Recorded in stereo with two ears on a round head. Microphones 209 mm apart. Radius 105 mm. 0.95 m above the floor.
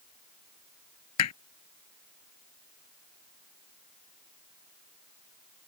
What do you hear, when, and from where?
1.2 s hammering: 85° left